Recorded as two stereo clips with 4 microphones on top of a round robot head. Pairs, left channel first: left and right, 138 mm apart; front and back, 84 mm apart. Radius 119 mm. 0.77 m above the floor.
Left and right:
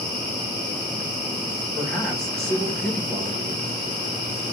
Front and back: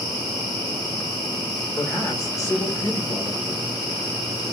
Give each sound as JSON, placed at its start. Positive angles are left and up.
{"t": 1.8, "sound": "a man speaking", "azimuth_deg": 5, "distance_m": 1.3}